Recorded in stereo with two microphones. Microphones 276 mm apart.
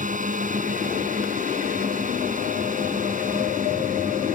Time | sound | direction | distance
0.0 | a drone | 30° right (ahead or behind) | ?